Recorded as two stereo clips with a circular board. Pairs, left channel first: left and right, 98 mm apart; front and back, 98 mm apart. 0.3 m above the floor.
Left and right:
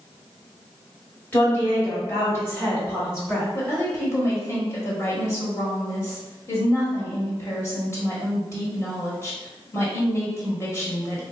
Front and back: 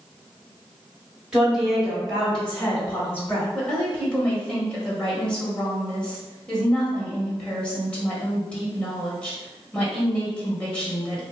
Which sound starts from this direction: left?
A woman speaking, at 3.5 s.